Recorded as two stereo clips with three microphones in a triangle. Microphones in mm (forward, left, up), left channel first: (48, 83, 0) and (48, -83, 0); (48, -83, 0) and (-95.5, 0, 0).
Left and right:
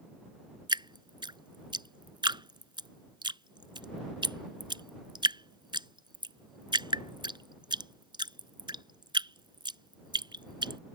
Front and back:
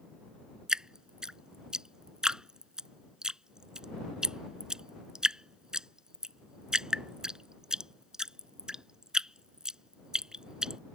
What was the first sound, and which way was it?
Dripping, 125° right.